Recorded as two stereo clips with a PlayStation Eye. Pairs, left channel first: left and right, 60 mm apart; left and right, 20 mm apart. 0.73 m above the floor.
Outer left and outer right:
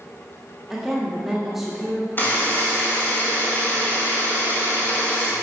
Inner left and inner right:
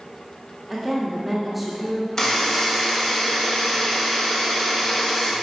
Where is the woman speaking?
5° right (ahead or behind), 1.5 m.